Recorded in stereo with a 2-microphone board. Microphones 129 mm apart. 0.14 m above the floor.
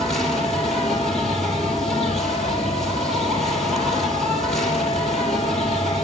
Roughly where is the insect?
Centre.